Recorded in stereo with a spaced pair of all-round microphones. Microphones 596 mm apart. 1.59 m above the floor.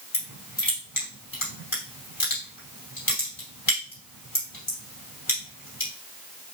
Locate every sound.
0.1 s crushing: 35° left (ahead or behind), 2.5 m